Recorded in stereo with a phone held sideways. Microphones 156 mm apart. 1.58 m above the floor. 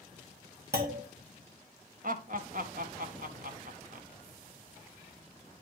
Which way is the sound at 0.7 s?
80° right.